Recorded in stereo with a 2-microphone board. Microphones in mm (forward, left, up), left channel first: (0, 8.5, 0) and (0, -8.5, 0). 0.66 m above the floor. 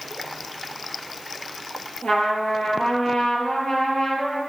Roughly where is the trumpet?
Left.